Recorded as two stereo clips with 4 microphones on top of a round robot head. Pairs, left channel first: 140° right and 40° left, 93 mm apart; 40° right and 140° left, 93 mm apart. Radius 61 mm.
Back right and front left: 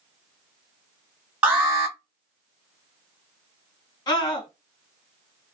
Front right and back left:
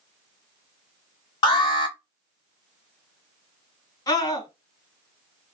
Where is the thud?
No thud in this recording.